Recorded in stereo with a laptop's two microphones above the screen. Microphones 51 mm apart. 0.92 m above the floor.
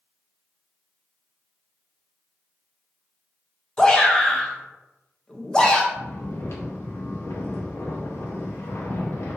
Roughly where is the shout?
Centre.